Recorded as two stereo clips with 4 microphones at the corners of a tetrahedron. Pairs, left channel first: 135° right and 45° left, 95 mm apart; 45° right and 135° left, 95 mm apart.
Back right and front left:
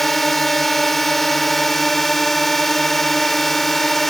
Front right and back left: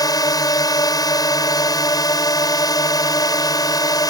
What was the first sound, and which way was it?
A drone, 50° right.